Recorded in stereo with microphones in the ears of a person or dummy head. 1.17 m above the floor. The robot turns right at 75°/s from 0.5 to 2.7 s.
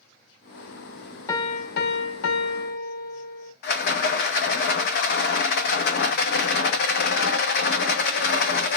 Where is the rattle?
55° left (ahead or behind), 0.8 m.